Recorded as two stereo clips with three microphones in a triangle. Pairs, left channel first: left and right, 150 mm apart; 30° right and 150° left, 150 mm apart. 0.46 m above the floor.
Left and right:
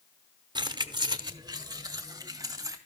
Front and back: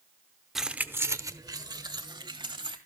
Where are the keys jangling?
120° right, 0.6 m; by 2.8 s 155° right, 1.9 m.